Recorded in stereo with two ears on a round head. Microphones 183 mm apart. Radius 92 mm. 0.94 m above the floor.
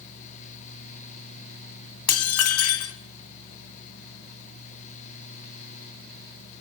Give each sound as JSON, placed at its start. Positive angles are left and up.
{"t": 2.1, "sound": "dishes clattering", "side_deg": 85, "distance_m": 1.9}